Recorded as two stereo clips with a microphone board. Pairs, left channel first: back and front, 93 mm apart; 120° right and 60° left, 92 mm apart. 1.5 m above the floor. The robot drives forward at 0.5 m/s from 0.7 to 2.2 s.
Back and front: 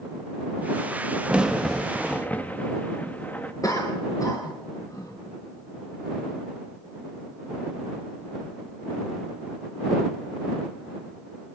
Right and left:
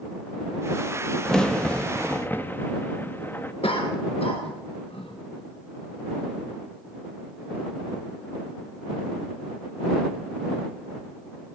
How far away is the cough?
About 1.7 m.